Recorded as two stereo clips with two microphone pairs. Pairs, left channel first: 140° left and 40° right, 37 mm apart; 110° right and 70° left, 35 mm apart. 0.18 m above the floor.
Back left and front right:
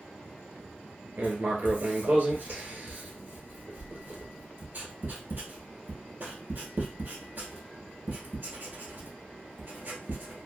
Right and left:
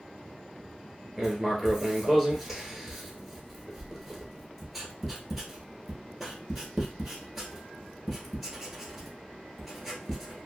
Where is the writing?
20° right, 1.0 m.